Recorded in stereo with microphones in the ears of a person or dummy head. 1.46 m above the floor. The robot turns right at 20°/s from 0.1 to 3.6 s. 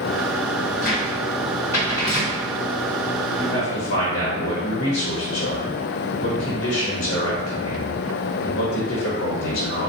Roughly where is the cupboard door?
Left.